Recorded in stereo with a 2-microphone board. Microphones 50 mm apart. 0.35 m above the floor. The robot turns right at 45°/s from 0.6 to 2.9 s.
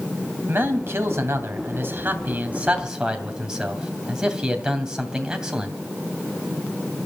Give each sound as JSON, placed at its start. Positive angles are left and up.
{"t": 0.5, "sound": "a man speaking", "azimuth_deg": -120, "distance_m": 2.5}